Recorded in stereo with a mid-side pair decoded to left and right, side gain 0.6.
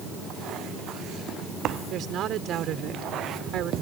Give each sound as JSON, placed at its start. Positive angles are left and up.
{"t": 1.9, "sound": "a woman speaking", "azimuth_deg": -55}